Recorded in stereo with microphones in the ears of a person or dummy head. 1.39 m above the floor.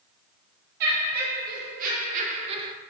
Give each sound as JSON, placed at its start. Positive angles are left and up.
{"t": 0.8, "sound": "laughter", "side_deg": -55, "distance_m": 1.8}